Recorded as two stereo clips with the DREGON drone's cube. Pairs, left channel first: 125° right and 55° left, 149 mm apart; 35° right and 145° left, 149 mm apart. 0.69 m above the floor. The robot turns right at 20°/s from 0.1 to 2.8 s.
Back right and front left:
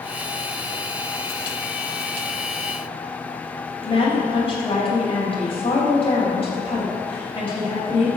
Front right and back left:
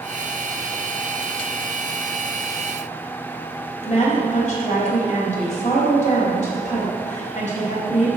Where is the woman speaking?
70° right, 3.5 m.